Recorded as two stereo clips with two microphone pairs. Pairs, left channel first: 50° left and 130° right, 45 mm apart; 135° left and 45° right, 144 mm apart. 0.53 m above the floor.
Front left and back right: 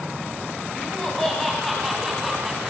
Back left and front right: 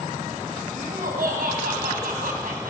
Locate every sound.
0.8 s laughter: 30° right, 4.5 m; by 2.7 s 50° right, 5 m